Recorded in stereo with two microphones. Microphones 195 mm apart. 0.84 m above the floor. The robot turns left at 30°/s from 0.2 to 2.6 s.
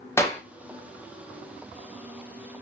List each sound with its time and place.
0.2 s a clap: 15° left (ahead or behind), 0.6 m